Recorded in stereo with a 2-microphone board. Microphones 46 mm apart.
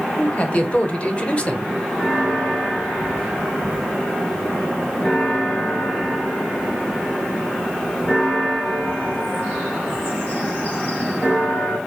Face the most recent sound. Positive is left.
turn(degrees=25)  # may be behind; listen again after turning